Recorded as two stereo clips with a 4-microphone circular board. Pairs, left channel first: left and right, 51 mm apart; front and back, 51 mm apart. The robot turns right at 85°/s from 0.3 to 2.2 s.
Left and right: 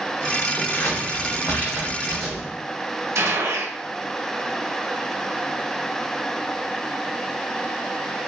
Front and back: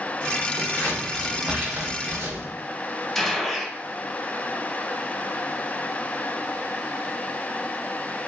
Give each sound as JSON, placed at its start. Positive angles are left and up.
{"t": 0.6, "sound": "scissors", "azimuth_deg": 30, "distance_m": 0.9}
{"t": 3.1, "sound": "a gunshot", "azimuth_deg": -85, "distance_m": 0.6}